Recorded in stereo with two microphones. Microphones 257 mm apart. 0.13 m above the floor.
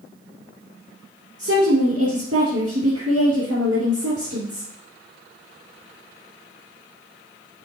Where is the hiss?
I don't hear a hiss.